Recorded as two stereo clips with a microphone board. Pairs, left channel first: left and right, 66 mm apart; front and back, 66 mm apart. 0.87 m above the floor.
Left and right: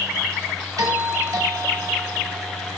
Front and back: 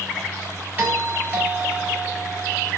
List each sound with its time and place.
0.8 s a doorbell: 115° right, 7.5 m